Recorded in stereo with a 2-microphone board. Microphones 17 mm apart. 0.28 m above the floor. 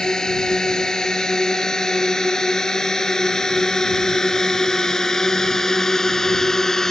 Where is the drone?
45° left (ahead or behind); by 6.9 s 30° left (ahead or behind).